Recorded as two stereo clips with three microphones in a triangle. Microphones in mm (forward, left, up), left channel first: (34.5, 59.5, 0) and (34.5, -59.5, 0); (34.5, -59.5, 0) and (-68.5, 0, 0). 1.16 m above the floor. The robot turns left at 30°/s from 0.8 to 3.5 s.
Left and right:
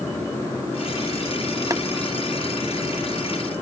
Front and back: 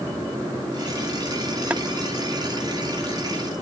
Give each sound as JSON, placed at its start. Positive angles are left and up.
{"t": 1.7, "sound": "boiling", "azimuth_deg": -135}